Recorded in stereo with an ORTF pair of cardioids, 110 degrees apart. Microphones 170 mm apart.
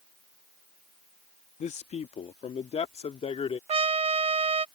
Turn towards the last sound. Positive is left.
turn(degrees=-35)